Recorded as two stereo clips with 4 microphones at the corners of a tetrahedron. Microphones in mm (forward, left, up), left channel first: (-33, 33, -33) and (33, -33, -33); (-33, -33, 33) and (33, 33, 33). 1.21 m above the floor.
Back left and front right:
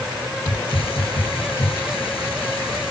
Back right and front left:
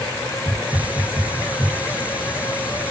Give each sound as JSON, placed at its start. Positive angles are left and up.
{"t": 0.5, "sound": "a hiss", "azimuth_deg": 120}